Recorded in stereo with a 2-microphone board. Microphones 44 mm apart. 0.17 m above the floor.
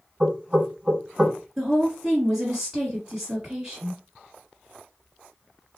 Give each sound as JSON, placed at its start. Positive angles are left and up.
{"t": 0.2, "sound": "knocking", "side_deg": -20, "distance_m": 1.0}
{"t": 1.6, "sound": "a woman speaking", "side_deg": -10, "distance_m": 1.6}